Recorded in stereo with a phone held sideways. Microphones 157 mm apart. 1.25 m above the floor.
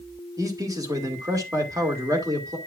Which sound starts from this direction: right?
A man speaking, at 0.4 s.